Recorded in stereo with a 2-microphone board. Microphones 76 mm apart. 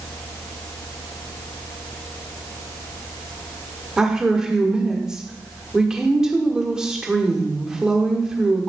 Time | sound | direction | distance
4.0 | a woman speaking | 10° right (ahead or behind) | 1.4 m